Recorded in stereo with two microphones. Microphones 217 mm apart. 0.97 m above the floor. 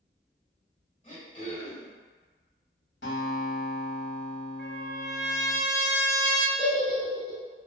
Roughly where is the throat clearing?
Left.